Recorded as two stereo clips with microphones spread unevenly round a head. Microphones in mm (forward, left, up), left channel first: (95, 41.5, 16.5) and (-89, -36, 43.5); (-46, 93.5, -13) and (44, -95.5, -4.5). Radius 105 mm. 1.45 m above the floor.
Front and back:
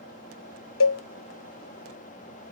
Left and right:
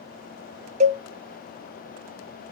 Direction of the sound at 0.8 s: 5° right.